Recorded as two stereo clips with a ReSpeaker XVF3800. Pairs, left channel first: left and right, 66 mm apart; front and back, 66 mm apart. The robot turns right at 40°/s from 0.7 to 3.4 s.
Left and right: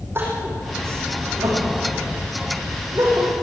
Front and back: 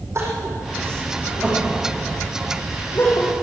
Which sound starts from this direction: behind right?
Crying, at 0.1 s.